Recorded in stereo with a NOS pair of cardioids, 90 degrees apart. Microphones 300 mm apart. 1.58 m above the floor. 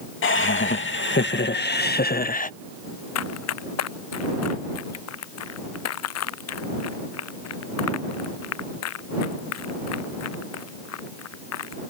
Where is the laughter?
45° left; by 2.5 s 30° left.